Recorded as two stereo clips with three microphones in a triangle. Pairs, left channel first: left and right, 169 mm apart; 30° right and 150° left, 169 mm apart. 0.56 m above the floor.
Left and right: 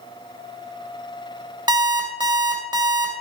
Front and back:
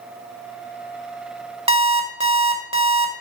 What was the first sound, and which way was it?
An alarm clock, 155° right.